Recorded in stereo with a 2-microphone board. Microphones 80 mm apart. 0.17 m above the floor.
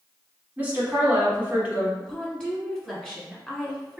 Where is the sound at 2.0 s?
10° left (ahead or behind), 1.3 m.